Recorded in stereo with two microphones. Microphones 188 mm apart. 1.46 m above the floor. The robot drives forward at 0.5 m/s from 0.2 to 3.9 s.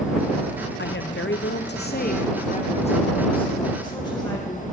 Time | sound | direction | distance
0.8 | a woman speaking | 65° left (ahead or behind) | 0.6 m